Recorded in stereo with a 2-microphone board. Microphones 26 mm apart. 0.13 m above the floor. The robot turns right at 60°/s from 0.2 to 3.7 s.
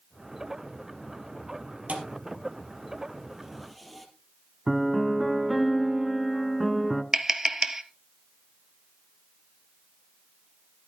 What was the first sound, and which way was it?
A thud, 65° right (ahead or behind).